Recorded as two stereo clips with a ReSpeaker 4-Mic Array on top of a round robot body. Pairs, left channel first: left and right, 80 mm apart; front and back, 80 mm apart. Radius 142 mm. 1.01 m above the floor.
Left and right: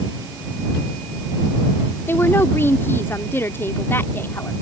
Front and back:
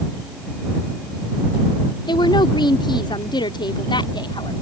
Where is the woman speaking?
25° left.